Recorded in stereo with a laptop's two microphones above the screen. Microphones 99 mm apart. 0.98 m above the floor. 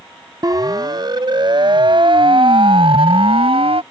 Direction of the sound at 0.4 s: 45° right (ahead or behind).